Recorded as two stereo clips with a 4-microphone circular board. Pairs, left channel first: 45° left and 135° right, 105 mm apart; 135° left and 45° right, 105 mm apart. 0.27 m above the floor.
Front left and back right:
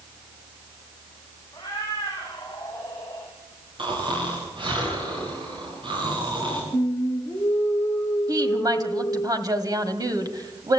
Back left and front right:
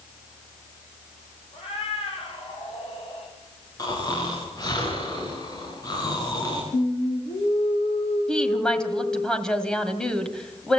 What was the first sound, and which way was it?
A cat meowing, 110° left.